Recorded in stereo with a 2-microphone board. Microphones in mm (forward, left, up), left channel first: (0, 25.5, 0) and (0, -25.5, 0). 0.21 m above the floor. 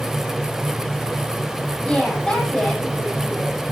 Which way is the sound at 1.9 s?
15° left (ahead or behind).